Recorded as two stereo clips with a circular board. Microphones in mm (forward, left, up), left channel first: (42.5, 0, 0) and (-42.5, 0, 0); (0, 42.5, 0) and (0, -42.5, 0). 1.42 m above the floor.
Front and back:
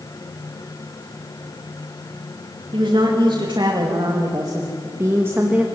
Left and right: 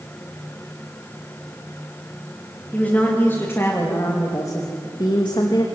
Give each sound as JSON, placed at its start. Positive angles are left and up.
{"t": 2.7, "sound": "a woman speaking", "azimuth_deg": 165, "distance_m": 3.0}